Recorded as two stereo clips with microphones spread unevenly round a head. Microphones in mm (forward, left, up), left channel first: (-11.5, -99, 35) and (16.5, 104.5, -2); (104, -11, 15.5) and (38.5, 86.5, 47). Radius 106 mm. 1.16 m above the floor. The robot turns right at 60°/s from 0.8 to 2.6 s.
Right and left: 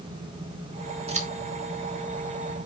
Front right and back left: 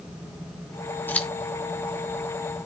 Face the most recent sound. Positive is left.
turn(degrees=110)